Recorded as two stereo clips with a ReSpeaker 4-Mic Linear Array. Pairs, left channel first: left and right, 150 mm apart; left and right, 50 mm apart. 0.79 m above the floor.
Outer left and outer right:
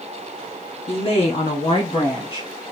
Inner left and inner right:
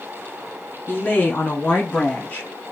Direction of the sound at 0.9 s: 40° left (ahead or behind).